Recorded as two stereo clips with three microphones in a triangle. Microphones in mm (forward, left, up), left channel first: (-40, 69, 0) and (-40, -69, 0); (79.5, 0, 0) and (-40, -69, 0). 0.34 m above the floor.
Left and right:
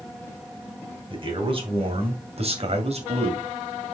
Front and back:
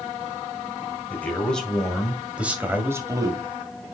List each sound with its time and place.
1.1 s a man speaking: 50° right, 2.5 m; by 3.5 s 100° right, 2 m